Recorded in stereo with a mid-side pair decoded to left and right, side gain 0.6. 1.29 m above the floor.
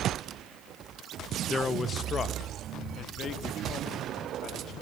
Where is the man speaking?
25° left, 1.5 m; by 4.7 s 50° left, 4 m.